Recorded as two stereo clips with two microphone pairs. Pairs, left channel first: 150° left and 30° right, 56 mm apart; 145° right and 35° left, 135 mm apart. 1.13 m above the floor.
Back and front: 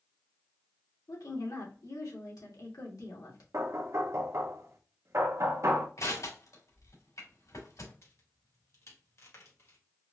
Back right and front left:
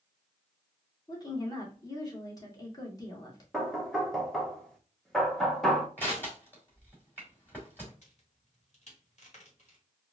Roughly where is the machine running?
No machine running in this recording.